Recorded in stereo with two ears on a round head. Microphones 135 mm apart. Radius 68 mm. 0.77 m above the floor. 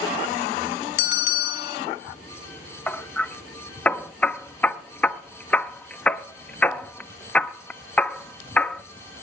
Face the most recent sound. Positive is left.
turn(degrees=10)  # may be behind; listen again after turning